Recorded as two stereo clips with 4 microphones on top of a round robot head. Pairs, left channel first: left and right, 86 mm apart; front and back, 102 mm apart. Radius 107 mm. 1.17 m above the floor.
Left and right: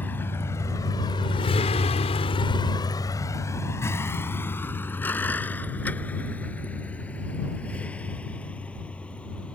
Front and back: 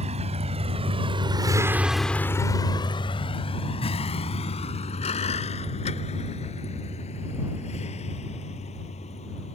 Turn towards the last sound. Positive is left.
turn(degrees=15)